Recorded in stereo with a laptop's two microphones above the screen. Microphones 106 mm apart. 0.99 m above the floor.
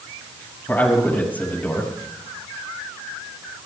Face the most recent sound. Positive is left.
turn(degrees=15)  # may be behind; listen again after turning